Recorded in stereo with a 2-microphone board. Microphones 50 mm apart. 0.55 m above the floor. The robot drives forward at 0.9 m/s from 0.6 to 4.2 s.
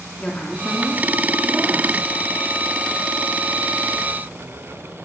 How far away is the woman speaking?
About 0.9 m.